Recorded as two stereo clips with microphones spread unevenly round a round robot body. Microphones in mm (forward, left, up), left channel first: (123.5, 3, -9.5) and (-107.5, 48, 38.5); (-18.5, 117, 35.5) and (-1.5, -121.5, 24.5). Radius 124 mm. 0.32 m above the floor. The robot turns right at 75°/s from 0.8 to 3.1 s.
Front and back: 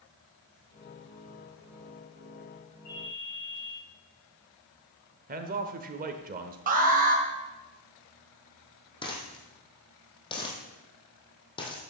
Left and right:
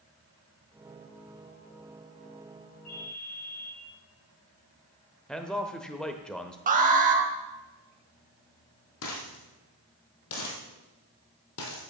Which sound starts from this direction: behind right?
An alarm, at 6.7 s.